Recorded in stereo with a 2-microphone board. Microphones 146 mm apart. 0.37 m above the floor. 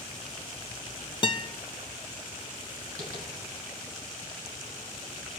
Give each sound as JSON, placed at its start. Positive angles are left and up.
{"t": 1.2, "sound": "a guitar", "side_deg": 35, "distance_m": 0.6}
{"t": 3.0, "sound": "tapping", "side_deg": -70, "distance_m": 3.0}